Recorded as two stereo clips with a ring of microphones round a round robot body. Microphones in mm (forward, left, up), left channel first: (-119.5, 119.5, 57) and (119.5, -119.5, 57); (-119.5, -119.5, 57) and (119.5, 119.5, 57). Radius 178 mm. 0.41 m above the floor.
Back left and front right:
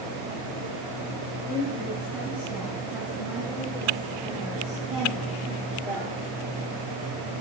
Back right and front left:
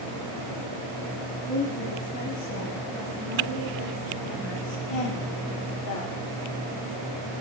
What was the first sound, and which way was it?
A woman speaking, 140° right.